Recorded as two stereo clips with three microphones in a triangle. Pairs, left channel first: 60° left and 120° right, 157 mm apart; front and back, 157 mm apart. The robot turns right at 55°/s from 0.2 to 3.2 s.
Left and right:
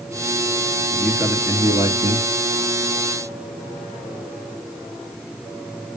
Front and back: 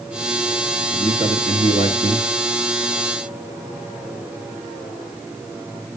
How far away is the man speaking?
About 1.5 m.